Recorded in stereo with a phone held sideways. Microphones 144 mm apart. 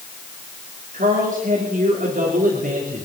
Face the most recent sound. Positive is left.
turn(degrees=-65)  # may be behind; listen again after turning